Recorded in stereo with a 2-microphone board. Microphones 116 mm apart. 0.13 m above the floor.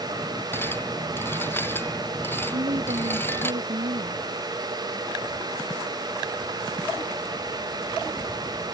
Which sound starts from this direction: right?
A woman speaking, at 2.5 s.